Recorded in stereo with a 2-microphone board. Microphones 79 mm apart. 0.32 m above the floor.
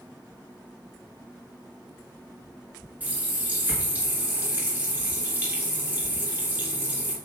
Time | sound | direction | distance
3.0 | a running tap | 25° right (ahead or behind) | 3 m